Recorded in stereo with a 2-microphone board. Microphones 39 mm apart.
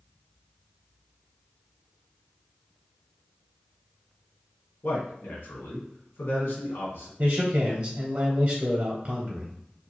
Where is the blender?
I don't hear a blender.